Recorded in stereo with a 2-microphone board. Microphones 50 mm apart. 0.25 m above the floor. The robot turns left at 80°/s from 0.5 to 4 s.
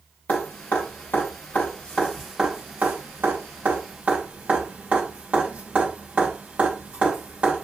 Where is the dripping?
35° left (ahead or behind), 2.5 m; by 7.6 s 25° right (ahead or behind), 2.5 m.